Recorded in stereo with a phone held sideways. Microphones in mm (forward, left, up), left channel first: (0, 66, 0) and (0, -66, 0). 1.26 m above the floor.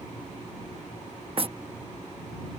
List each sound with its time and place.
1.4 s knocking: 45° right (ahead or behind)